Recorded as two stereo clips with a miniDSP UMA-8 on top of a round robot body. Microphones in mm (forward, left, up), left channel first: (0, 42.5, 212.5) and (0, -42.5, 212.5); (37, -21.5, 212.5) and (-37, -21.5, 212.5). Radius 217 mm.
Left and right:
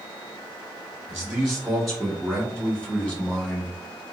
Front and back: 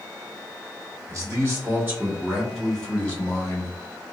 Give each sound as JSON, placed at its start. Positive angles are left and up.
{"t": 1.1, "sound": "a man speaking", "azimuth_deg": -175, "distance_m": 1.6}